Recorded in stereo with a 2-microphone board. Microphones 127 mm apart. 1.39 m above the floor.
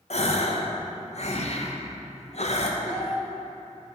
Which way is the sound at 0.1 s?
55° left (ahead or behind).